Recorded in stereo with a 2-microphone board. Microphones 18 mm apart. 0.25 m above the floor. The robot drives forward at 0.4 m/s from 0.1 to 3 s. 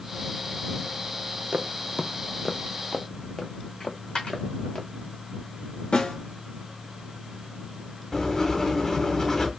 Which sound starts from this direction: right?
Footsteps, at 1.5 s.